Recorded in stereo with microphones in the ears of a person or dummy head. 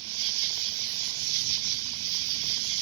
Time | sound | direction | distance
0.0 | an insect | 80° right | ?